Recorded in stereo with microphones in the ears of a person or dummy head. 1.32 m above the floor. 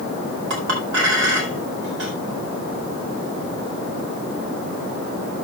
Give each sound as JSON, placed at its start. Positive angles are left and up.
{"t": 0.5, "sound": "a clink", "side_deg": -65, "distance_m": 4.5}